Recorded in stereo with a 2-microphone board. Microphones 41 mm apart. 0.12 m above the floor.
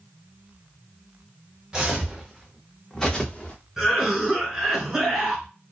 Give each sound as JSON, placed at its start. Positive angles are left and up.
{"t": 1.7, "sound": "footsteps", "side_deg": -20, "distance_m": 1.2}
{"t": 3.8, "sound": "a cough", "side_deg": -10, "distance_m": 1.4}